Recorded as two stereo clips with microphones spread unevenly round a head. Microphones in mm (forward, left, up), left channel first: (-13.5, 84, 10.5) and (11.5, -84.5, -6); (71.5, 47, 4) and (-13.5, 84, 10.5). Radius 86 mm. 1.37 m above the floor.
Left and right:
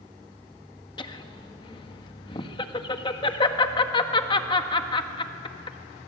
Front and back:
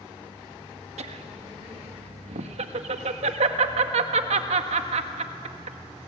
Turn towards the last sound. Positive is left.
turn(degrees=160)